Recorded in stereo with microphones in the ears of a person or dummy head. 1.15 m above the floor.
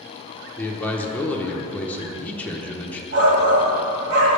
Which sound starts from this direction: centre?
A man speaking, at 0.6 s.